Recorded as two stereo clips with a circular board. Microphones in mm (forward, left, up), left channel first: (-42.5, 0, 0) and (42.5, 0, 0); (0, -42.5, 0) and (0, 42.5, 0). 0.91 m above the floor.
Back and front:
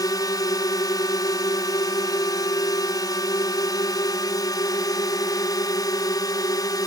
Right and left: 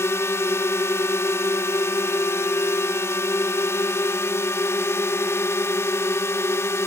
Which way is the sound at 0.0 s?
145° right.